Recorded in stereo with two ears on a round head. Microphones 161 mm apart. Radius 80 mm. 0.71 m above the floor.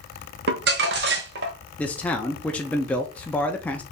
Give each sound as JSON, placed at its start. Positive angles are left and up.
{"t": 0.5, "sound": "crumpling", "side_deg": -60, "distance_m": 1.0}
{"t": 1.8, "sound": "a man speaking", "side_deg": 10, "distance_m": 0.6}